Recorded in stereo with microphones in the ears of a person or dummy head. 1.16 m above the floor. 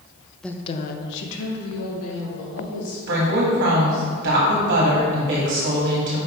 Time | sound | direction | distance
0.4 | a woman speaking | centre (ahead or behind) | 0.7 m
3.1 | a woman speaking | 50° right (ahead or behind) | 2 m